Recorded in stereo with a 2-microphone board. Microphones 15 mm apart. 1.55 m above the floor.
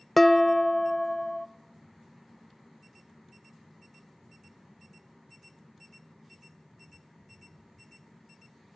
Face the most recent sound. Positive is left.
turn(degrees=20)  # may be behind; listen again after turning